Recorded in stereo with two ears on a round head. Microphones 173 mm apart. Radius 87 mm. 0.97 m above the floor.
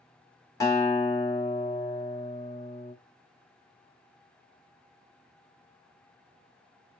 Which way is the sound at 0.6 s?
20° left (ahead or behind).